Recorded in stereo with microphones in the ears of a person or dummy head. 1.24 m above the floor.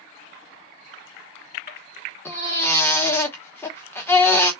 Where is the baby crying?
20° left (ahead or behind), 1.1 m.